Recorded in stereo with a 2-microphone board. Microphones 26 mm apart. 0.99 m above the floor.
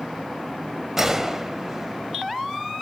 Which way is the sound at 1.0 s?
10° right (ahead or behind).